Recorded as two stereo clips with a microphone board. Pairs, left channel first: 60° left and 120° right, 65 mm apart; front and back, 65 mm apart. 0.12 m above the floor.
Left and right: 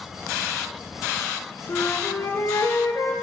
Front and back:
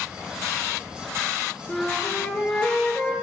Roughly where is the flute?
Left.